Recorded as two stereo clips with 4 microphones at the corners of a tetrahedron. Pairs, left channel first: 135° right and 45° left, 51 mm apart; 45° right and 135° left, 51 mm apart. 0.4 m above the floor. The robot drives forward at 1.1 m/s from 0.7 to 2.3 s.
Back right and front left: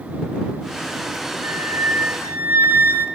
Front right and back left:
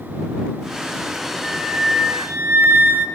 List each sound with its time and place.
1.4 s a flute: 50° left, 1.5 m; by 3.1 s 90° left, 1.2 m